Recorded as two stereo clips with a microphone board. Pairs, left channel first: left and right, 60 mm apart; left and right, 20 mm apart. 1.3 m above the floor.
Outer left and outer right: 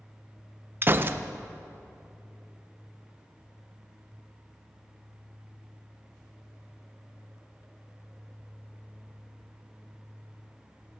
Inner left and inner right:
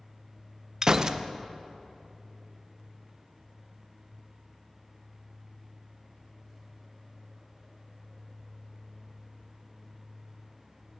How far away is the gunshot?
About 0.6 m.